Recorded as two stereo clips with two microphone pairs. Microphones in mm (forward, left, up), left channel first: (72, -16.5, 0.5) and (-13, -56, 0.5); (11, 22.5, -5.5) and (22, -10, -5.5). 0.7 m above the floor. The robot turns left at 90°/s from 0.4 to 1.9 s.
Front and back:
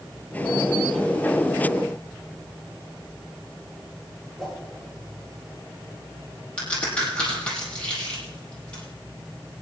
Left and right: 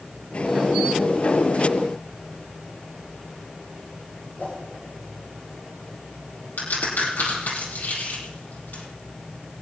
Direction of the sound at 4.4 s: 120° left.